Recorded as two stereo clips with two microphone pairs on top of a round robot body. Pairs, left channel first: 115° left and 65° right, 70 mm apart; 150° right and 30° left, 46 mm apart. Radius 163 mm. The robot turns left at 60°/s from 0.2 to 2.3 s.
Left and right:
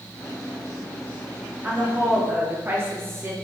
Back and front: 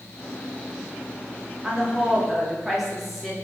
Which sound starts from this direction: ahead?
A woman speaking, at 1.6 s.